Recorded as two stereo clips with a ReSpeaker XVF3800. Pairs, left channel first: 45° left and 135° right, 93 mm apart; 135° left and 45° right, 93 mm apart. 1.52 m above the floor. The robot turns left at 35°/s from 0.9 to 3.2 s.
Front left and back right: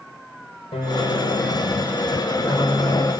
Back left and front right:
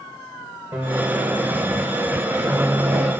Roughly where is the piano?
Ahead left.